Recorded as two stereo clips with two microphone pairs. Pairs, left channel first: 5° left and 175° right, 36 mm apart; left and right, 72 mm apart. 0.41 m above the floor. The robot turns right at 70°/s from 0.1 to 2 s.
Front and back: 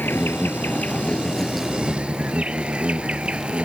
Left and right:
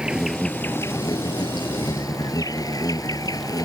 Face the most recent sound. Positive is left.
turn(degrees=125)